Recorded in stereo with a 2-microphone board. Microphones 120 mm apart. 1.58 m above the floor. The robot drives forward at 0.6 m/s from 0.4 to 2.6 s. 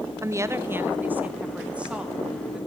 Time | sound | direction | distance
0.2 | a woman speaking | 25° right (ahead or behind) | 0.5 m